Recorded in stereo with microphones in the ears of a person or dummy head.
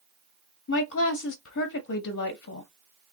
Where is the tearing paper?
I don't hear tearing paper.